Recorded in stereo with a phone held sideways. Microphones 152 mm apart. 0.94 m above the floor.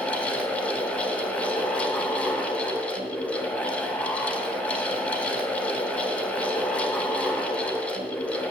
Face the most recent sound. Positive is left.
turn(degrees=10)  # may be behind; listen again after turning